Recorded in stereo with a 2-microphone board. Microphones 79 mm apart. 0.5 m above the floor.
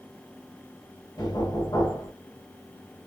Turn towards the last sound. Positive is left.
turn(degrees=60)  # may be behind; listen again after turning